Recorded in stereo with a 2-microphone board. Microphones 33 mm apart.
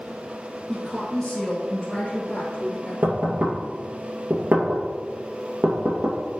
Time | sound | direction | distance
0.7 | a woman speaking | 10° left (ahead or behind) | 1.8 m
3.0 | knocking | 60° right (ahead or behind) | 2.5 m